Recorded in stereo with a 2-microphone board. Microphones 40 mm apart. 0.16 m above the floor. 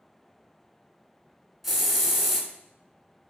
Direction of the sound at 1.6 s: 5° right (ahead or behind).